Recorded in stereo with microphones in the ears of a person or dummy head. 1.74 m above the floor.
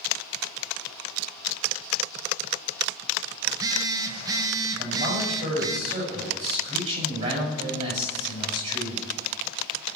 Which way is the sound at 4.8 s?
40° right (ahead or behind).